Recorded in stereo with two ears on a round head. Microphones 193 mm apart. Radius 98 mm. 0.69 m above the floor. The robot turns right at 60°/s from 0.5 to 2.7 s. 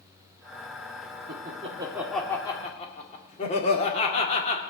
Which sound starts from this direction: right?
Laughter, at 1.3 s.